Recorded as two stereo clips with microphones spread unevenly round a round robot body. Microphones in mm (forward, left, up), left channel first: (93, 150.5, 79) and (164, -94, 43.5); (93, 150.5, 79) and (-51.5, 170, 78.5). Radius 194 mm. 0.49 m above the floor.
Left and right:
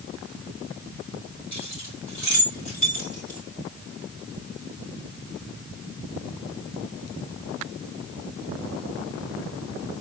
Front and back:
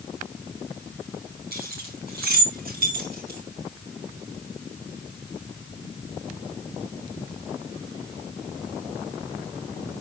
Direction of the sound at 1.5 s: Straight behind.